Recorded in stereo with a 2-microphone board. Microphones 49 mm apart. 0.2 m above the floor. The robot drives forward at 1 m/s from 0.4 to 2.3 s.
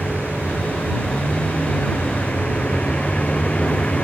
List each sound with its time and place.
0.0 s a vehicle: 25° left (ahead or behind)